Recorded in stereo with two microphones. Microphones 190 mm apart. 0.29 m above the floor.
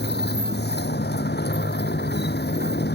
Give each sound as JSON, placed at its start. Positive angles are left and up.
{"t": 0.0, "sound": "a motorcycle", "side_deg": 60}